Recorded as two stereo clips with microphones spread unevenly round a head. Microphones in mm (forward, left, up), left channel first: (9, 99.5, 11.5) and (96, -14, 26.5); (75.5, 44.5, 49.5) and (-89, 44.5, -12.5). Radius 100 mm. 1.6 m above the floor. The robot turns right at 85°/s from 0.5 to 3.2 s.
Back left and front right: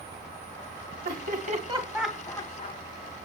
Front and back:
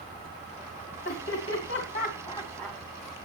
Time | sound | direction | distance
1.1 | laughter | 50° right | 2.5 m